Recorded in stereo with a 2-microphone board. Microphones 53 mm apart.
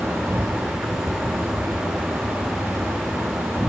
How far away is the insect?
About 1.5 m.